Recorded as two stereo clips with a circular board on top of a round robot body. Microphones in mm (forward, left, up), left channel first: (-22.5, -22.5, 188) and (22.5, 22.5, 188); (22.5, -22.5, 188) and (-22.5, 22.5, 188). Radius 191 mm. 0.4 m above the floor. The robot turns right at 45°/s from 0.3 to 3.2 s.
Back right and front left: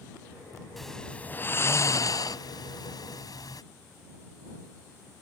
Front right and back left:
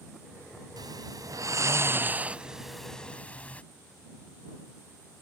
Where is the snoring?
135° left; by 3.6 s 115° right.